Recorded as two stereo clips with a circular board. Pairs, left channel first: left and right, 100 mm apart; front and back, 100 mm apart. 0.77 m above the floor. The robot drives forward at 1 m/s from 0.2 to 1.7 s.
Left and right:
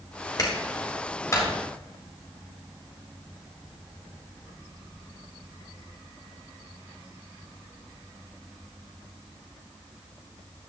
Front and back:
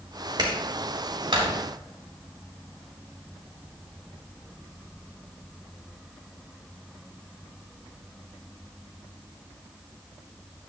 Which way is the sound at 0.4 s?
140° left.